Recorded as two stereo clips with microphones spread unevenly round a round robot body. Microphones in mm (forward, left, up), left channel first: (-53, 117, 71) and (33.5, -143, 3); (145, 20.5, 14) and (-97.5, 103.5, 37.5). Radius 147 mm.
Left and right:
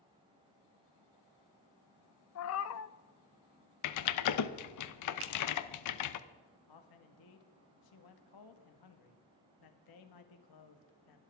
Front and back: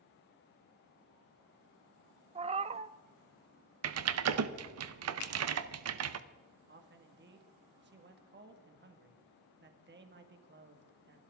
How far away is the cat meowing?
About 0.5 m.